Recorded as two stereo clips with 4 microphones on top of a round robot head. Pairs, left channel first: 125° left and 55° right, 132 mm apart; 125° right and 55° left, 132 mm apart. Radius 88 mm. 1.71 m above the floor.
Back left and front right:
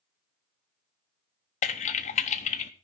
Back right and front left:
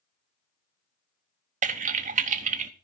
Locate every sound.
1.6 s typing on a keyboard: 85° left, 0.9 m